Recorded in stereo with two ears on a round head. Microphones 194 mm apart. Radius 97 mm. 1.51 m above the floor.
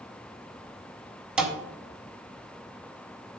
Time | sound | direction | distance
1.4 | a thud | 5° right (ahead or behind) | 1.5 m